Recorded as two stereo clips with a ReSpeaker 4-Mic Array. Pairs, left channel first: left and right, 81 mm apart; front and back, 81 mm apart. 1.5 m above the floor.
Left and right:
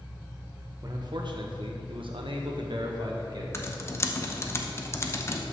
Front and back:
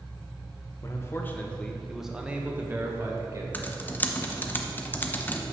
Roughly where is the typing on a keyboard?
Ahead left.